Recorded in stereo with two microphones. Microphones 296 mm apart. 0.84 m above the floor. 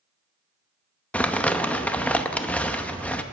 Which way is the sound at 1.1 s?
5° left (ahead or behind).